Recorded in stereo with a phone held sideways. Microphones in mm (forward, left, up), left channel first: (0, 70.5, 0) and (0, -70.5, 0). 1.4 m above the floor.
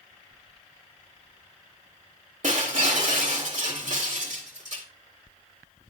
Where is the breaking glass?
65° right (ahead or behind), 1.9 m.